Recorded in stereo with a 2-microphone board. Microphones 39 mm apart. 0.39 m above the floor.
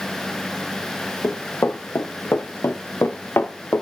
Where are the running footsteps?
85° left, 5 m.